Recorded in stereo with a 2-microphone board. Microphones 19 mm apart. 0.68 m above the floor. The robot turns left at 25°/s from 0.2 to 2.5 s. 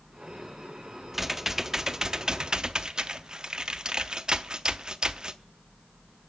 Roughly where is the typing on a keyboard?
Ahead.